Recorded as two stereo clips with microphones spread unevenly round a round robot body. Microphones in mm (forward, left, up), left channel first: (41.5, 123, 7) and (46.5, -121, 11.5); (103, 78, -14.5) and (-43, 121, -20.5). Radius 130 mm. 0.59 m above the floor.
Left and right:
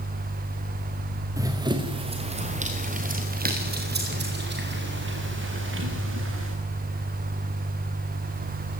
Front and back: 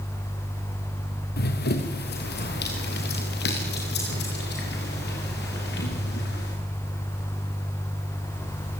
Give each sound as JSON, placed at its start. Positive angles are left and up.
{"t": 1.4, "sound": "running footsteps", "azimuth_deg": -10, "distance_m": 3.5}